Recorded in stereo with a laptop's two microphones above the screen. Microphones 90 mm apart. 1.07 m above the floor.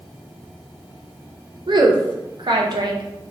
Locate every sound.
1.7 s a woman speaking: 60° right (ahead or behind), 0.5 m